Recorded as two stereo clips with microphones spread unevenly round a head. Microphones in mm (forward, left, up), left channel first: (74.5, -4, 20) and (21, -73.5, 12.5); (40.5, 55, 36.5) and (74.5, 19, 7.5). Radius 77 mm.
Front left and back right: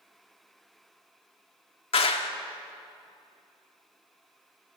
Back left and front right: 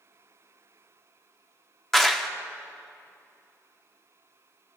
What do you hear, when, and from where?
1.9 s a clap: 55° left, 1.6 m